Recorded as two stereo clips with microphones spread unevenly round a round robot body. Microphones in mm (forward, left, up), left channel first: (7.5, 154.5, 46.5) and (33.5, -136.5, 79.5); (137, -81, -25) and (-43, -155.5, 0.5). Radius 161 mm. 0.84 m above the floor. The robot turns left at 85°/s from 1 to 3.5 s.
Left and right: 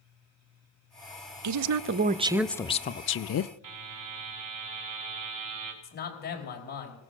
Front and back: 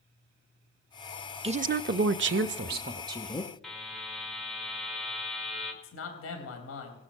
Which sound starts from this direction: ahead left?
A man speaking, at 5.8 s.